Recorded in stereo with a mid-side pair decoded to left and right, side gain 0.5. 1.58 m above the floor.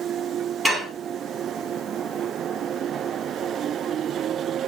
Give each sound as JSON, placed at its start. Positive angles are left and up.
{"t": 0.7, "sound": "dishes clattering", "azimuth_deg": -5, "distance_m": 1.8}